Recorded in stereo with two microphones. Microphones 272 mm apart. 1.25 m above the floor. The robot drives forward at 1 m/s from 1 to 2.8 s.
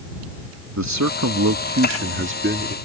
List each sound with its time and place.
0.8 s a man speaking: 85° right; by 2.8 s 40° right (ahead or behind)